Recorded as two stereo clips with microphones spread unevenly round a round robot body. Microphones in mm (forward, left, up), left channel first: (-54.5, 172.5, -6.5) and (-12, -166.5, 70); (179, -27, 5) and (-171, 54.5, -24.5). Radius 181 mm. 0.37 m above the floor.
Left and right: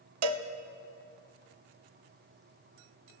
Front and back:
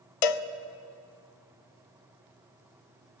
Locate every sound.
0.2 s a cowbell: 35° right, 0.5 m